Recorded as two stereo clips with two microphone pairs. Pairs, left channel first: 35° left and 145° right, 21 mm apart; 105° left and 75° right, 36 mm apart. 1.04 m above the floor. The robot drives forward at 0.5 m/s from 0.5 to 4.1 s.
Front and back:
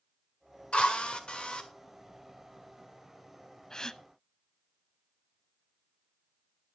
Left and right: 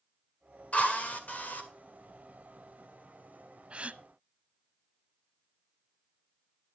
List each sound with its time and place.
0.7 s a drill: 60° left, 2.0 m; by 1.7 s 70° left, 1.8 m
3.7 s a gasp: 25° right, 0.7 m; by 4.0 s 30° right, 0.6 m